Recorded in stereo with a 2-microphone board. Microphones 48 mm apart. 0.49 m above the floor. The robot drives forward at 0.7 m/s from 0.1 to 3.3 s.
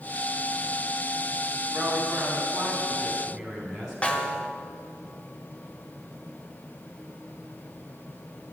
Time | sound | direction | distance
1.7 | a woman speaking | 15° right (ahead or behind) | 4 m
4.0 | a snare drum | 25° left (ahead or behind) | 1.0 m